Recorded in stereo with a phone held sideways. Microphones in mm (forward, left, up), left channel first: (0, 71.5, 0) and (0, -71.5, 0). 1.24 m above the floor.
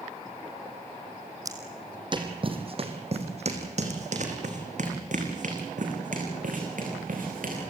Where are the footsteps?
25° right (ahead or behind), 2 m; by 7.7 s 70° right (ahead or behind), 5.5 m.